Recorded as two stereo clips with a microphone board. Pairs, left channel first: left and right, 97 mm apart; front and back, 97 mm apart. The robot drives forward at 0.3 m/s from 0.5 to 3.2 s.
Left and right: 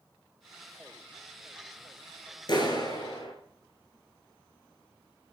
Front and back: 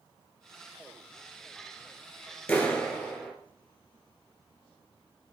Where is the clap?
80° left, 1.9 m; by 3.3 s 85° left, 1.9 m.